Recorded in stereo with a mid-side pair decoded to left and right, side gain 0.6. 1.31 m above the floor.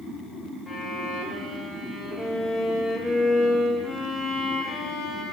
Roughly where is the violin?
Ahead.